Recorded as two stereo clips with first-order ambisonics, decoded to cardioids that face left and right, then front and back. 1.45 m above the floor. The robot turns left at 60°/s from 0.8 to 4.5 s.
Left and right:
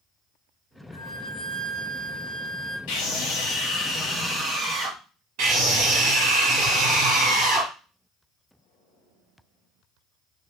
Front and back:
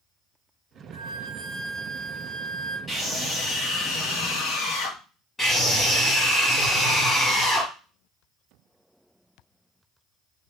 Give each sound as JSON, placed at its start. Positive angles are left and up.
{"t": 0.9, "sound": "a flute", "azimuth_deg": 135, "distance_m": 2.5}
{"t": 2.9, "sound": "a scream", "azimuth_deg": 80, "distance_m": 1.4}
{"t": 5.4, "sound": "a scream", "azimuth_deg": -85, "distance_m": 2.5}